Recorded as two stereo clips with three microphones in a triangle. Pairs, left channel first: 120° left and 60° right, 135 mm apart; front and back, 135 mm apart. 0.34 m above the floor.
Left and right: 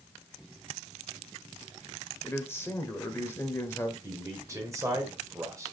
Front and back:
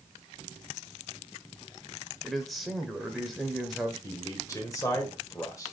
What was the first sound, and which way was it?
A man speaking, 90° left.